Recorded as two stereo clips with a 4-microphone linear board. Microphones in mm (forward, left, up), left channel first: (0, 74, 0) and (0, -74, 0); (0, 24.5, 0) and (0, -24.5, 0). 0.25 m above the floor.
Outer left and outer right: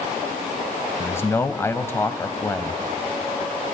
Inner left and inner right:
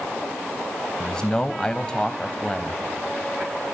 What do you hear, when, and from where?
1.0 s a man speaking: 15° left (ahead or behind), 1.0 m